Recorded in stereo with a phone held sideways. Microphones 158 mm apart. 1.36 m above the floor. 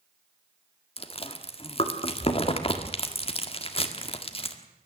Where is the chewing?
35° left (ahead or behind), 1.7 m.